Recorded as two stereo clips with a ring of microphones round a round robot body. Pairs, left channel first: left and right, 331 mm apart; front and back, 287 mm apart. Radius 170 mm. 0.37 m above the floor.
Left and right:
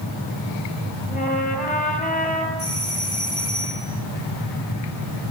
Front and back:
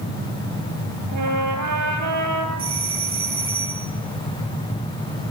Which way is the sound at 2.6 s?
140° left.